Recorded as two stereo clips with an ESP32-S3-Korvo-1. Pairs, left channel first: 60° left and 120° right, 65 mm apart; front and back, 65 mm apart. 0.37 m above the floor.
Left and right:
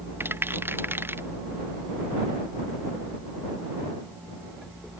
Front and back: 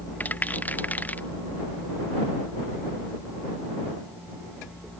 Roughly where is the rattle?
Ahead right.